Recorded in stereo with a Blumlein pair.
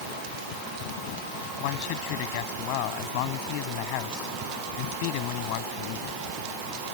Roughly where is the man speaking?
Ahead left.